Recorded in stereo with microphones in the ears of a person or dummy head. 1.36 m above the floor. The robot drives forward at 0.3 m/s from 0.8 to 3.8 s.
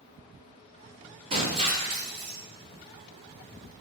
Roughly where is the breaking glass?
Right.